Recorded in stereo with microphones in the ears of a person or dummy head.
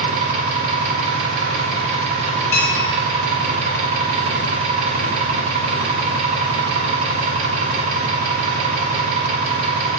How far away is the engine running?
About 0.9 m.